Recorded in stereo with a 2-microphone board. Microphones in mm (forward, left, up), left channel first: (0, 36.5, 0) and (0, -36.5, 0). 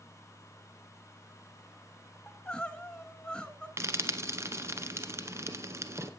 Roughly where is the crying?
Centre.